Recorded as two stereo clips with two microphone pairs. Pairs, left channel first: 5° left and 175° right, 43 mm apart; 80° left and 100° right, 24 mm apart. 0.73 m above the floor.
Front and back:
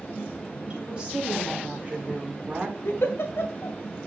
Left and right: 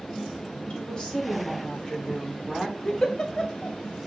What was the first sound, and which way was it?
A woman speaking, 120° left.